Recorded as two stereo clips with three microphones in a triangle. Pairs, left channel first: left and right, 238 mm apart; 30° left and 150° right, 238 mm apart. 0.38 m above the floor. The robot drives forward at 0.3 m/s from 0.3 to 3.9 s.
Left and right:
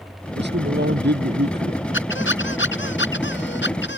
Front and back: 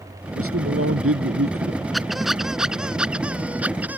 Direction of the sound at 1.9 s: 120° left.